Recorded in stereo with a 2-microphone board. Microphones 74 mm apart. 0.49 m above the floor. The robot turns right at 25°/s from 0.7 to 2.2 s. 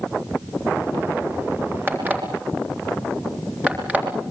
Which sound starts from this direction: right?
An alarm clock, at 1.9 s.